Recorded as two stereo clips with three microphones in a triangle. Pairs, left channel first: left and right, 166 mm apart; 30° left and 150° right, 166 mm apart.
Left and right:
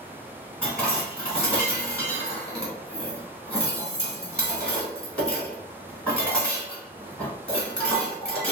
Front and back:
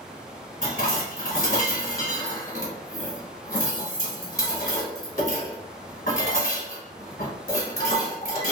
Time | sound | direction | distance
0.6 | dishes clattering | 5° left | 1.3 m